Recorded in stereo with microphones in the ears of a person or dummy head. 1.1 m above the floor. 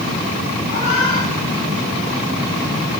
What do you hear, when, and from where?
0.7 s a cat meowing: 35° left (ahead or behind), 6.5 m